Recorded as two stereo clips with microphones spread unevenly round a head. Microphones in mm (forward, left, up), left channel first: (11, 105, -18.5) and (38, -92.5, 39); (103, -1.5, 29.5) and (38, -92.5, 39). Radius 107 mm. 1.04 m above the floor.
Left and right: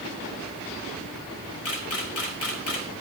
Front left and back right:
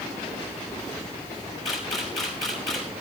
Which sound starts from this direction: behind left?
A camera shutter, at 1.6 s.